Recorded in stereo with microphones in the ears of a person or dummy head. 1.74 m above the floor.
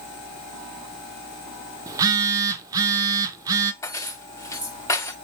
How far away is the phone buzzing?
About 0.7 m.